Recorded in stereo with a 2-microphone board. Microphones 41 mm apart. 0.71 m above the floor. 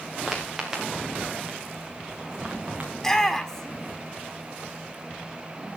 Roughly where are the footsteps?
Centre.